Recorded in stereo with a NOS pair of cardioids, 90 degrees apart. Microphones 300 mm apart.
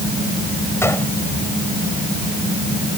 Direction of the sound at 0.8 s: 10° left.